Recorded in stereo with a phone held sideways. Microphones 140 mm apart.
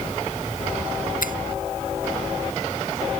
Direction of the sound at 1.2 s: 80° left.